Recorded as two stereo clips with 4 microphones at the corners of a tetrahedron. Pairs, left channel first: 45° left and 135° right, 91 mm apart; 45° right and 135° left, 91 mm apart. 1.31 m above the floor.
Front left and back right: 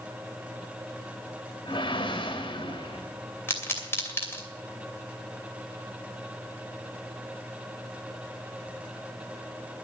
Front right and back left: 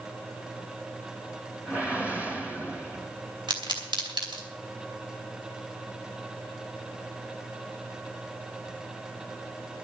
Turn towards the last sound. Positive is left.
turn(degrees=110)